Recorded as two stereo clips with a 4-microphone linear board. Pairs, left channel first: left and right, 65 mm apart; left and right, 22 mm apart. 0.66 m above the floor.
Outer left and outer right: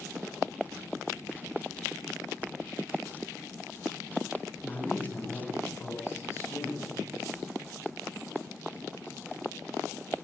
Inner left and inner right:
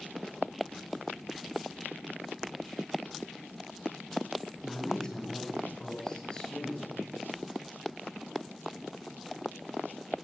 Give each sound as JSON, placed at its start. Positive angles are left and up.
{"t": 4.6, "sound": "a man speaking", "side_deg": 30, "distance_m": 5.0}